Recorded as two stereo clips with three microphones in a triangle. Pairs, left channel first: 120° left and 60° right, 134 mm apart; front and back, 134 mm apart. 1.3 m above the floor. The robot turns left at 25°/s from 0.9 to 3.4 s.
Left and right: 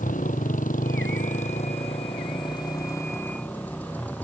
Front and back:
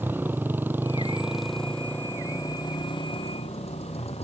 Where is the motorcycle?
105° left; by 4.2 s 40° left.